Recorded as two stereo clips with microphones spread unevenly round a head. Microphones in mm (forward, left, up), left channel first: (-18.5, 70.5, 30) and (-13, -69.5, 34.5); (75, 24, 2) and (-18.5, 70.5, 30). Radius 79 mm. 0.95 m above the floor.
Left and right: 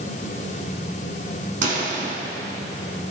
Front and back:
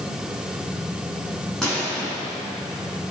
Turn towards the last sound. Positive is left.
turn(degrees=-120)